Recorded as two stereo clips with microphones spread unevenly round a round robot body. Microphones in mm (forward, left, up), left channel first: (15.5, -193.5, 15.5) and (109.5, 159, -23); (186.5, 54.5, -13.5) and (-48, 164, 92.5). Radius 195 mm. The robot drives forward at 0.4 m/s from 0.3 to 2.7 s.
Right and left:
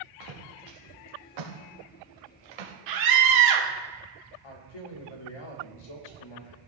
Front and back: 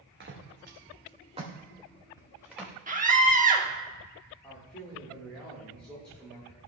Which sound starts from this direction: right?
A man speaking, at 4.4 s.